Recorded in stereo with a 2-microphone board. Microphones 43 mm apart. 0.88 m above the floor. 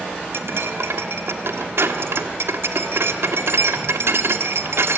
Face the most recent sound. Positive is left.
turn(degrees=-70)  # may be behind; listen again after turning